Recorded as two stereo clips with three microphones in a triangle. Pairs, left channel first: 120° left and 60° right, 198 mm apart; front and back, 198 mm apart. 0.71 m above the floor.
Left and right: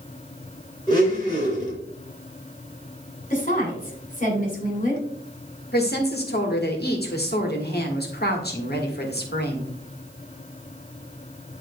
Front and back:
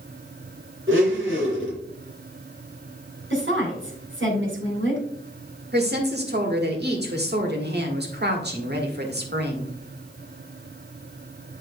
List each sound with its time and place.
0.9 s a blender: 170° right, 3.5 m
3.3 s a woman speaking: 170° left, 2.5 m
5.7 s a woman speaking: 150° left, 1.6 m